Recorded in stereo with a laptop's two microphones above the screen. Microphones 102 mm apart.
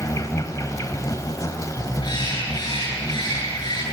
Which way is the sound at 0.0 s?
35° left (ahead or behind).